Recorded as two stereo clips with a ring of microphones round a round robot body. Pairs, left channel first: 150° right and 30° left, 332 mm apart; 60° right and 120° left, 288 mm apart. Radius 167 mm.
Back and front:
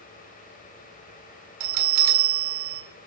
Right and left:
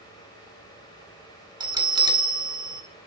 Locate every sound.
1.6 s a bell: 45° left, 1.8 m